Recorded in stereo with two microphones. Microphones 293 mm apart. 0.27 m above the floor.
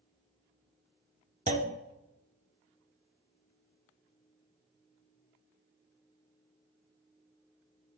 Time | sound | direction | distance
1.5 | a clunk | 25° right (ahead or behind) | 0.8 m